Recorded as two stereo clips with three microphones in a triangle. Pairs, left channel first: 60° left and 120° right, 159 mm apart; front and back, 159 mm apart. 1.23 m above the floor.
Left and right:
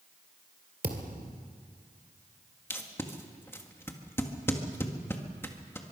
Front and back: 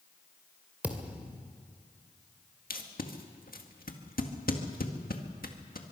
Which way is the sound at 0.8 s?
100° right.